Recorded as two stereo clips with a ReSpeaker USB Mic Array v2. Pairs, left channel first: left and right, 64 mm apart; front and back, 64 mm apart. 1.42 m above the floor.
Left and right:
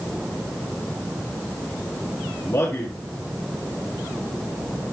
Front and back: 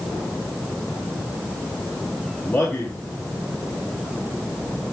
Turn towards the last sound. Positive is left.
turn(degrees=65)